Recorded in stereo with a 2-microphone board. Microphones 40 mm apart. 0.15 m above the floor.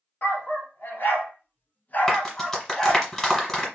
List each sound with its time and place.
0.2 s a dog barking: 60° left (ahead or behind), 1.4 m; by 3.1 s 10° left (ahead or behind), 0.9 m
2.1 s a clap: 15° left (ahead or behind), 1.8 m